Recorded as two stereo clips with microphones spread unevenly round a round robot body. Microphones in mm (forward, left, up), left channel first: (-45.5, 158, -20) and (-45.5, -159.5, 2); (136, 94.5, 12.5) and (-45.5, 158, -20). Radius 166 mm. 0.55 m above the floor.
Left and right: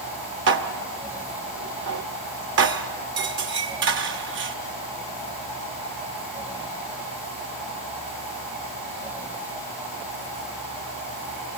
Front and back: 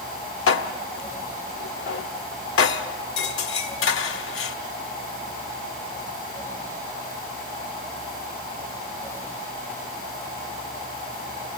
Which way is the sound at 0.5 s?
35° right.